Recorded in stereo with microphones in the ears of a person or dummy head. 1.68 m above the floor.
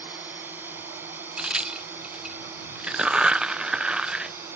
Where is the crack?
10° right (ahead or behind).